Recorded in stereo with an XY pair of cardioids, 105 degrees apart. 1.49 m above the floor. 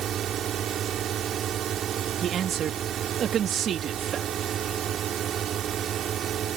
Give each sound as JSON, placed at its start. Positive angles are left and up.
{"t": 0.0, "sound": "a drone", "azimuth_deg": -60}
{"t": 2.2, "sound": "a man speaking", "azimuth_deg": -60}